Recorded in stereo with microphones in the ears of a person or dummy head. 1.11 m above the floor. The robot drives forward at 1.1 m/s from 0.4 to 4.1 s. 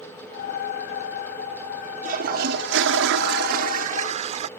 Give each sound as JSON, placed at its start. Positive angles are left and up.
{"t": 2.0, "sound": "a toilet flushing", "side_deg": -50}